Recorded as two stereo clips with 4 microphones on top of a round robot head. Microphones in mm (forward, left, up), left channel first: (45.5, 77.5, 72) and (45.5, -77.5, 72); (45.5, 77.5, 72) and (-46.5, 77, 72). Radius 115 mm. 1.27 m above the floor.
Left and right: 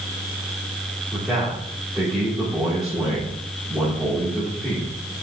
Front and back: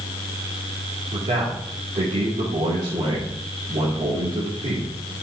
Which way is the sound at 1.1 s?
175° right.